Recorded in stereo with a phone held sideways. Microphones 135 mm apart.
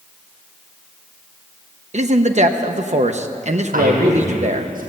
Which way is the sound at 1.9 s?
55° right (ahead or behind).